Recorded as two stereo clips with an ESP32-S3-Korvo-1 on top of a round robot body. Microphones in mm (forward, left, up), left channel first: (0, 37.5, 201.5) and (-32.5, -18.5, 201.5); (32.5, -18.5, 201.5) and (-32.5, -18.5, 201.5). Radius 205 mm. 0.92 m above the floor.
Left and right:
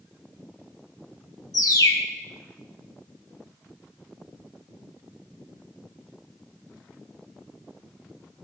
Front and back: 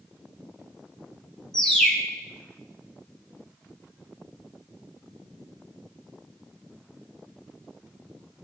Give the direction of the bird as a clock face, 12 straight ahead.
9 o'clock.